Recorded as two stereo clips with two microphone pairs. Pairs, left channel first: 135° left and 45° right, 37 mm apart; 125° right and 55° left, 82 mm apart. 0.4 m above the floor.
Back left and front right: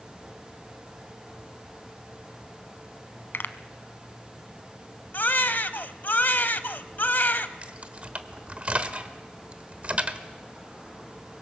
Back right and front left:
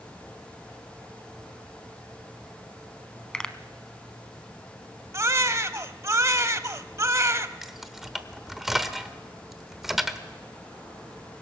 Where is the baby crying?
105° left, 0.7 m.